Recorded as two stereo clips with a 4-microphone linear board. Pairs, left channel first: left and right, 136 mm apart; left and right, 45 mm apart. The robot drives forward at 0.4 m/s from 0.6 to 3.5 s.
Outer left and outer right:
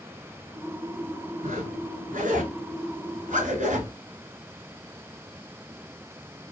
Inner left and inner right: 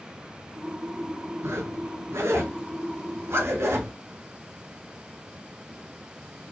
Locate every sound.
1.4 s a zipper: 65° right (ahead or behind), 1.4 m; by 3.9 s 70° right (ahead or behind), 1.4 m